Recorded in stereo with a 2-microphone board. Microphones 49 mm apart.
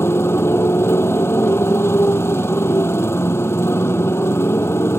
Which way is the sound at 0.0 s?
65° left (ahead or behind).